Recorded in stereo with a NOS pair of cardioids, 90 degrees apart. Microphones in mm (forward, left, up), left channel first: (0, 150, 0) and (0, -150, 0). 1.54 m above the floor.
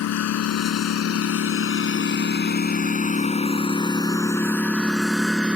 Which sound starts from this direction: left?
A lawn mower, at 0.0 s.